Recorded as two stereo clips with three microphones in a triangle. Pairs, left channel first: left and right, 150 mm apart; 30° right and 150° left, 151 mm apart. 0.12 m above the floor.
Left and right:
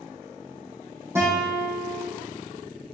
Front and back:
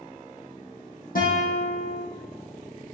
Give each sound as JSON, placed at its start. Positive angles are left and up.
{"t": 1.1, "sound": "a guitar", "azimuth_deg": -20, "distance_m": 3.0}